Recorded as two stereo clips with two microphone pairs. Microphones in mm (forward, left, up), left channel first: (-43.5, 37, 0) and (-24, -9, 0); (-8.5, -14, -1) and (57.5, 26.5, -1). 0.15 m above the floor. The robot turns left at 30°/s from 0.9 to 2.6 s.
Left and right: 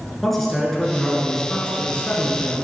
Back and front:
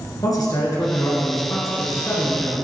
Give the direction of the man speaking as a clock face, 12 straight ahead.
5 o'clock.